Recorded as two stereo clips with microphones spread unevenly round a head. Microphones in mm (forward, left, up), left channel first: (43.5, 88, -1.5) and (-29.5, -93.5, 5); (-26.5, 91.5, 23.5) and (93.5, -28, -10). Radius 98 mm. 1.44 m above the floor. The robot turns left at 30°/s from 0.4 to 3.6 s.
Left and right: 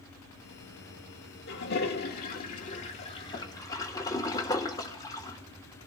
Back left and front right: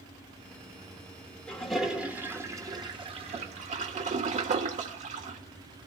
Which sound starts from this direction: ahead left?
A toilet flushing, at 1.5 s.